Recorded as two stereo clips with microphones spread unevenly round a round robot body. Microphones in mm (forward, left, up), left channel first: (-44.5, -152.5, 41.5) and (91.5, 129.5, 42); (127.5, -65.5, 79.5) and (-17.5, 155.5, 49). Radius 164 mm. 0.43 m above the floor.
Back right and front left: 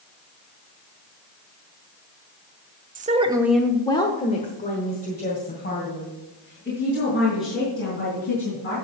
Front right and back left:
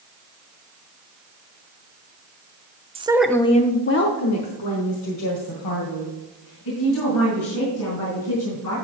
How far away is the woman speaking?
About 0.8 m.